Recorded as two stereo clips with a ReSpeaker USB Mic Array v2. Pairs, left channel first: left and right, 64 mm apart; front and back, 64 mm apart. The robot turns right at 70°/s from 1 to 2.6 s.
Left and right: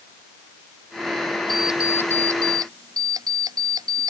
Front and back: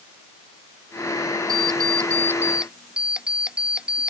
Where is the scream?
No scream in this recording.